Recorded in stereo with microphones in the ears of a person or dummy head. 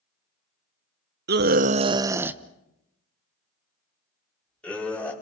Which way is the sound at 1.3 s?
50° right (ahead or behind).